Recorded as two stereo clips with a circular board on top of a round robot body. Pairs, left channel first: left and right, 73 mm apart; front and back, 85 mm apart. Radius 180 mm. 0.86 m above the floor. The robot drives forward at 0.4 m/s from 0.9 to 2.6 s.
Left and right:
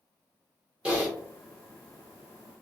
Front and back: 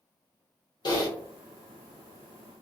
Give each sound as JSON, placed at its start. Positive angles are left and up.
{"t": 0.8, "sound": "typing on a keyboard", "azimuth_deg": -20, "distance_m": 1.2}